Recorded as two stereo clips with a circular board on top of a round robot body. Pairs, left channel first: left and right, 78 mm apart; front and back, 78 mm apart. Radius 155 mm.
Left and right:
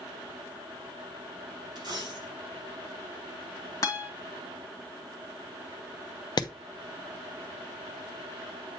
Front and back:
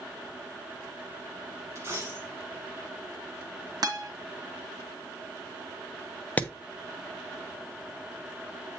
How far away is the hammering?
About 1.0 m.